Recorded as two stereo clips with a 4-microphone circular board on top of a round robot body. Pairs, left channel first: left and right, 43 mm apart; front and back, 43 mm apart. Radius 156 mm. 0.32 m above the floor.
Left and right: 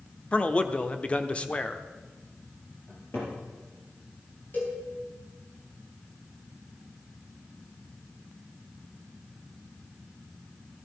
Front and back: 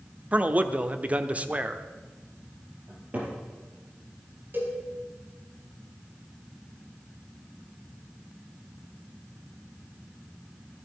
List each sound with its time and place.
0.3 s a man speaking: 140° left, 1.1 m
2.9 s a cupboard door: 125° left, 5 m
4.5 s a cowbell: 140° left, 4 m